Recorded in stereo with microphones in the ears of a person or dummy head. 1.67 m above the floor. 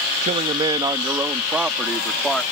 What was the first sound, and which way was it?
A man speaking, 30° right (ahead or behind).